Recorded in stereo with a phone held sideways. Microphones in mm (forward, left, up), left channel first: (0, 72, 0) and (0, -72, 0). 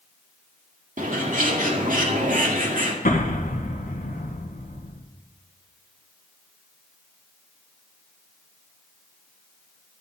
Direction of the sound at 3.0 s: 65° left (ahead or behind).